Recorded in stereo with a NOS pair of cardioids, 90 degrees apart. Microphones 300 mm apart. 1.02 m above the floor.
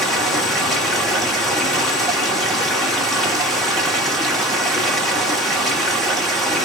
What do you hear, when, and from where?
0.0 s running water: straight ahead, 1.3 m